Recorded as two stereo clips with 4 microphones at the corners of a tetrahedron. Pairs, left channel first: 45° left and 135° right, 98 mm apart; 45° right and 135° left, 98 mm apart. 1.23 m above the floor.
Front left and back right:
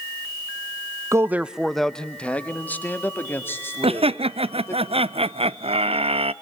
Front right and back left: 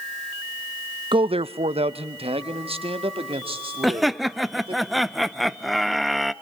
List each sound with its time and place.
1.1 s a man speaking: 170° left, 0.5 m; by 4.8 s 110° left, 3.5 m
3.8 s laughter: 135° right, 0.7 m